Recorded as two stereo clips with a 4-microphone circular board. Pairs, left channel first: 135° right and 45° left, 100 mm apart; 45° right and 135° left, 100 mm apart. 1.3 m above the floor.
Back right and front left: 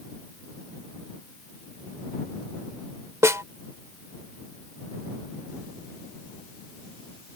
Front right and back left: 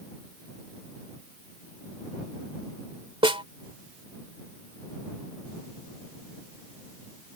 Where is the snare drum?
105° left.